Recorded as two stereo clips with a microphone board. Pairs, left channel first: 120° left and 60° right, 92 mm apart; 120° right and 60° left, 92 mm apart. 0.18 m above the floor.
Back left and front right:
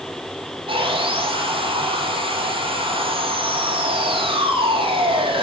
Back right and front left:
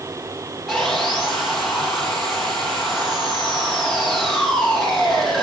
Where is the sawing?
30° right, 3.5 m.